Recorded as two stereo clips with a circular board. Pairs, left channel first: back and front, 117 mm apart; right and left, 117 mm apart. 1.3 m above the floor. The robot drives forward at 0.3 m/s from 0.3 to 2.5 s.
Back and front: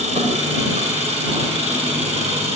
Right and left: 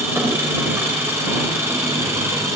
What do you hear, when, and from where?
0.0 s an engine running: 20° left, 5 m; by 2.6 s 25° left, 4.5 m